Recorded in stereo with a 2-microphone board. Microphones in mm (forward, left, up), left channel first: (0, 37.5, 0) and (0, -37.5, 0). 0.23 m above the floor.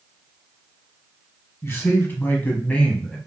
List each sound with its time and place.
1.6 s a man speaking: 35° left (ahead or behind), 1.7 m; by 3.2 s 10° left (ahead or behind), 1.3 m